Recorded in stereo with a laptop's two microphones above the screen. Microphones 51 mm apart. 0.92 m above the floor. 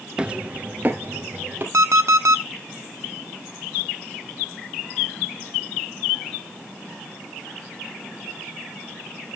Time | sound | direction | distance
0.2 | footsteps | 20° right (ahead or behind) | 0.9 m
1.7 | an alarm clock | 70° right (ahead or behind) | 0.8 m